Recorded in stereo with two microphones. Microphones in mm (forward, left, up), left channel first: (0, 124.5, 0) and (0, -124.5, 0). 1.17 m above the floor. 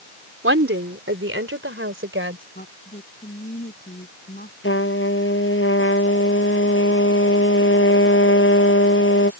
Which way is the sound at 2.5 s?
40° left (ahead or behind).